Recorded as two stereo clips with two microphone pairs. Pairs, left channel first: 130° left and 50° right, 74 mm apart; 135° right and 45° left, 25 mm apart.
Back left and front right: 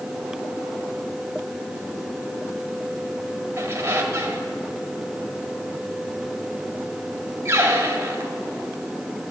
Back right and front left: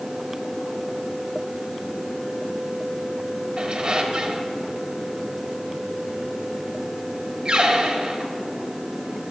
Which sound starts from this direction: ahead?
A squeak, at 3.6 s.